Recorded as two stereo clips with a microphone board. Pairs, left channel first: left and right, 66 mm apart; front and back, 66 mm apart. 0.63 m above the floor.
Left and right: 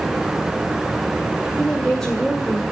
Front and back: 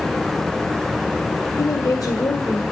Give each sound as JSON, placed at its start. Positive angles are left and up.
{"t": 1.6, "sound": "a woman speaking", "azimuth_deg": 5, "distance_m": 1.8}